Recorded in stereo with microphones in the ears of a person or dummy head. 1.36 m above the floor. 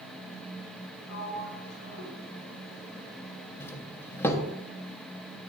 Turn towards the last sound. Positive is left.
turn(degrees=15)  # may be behind; listen again after turning